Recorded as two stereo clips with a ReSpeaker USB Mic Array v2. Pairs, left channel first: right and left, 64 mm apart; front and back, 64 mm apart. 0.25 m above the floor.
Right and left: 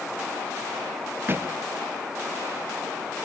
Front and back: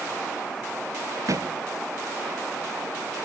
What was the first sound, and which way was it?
A thud, 145° left.